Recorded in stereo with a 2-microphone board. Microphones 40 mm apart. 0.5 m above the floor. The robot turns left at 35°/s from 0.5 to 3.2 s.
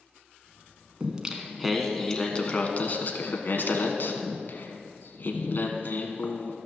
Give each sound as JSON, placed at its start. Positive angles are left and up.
{"t": 1.0, "sound": "singing", "azimuth_deg": -155, "distance_m": 1.2}